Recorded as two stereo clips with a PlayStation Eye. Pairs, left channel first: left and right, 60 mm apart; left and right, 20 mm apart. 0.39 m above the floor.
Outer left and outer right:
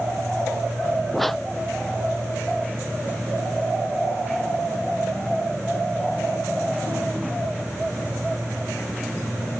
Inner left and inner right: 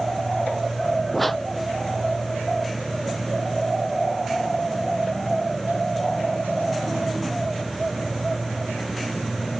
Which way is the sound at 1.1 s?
5° left (ahead or behind).